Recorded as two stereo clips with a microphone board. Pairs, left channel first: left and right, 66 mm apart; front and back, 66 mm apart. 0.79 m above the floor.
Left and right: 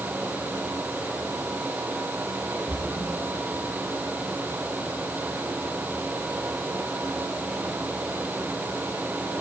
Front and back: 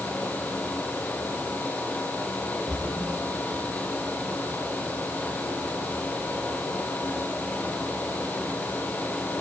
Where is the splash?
65° left, 4.5 m.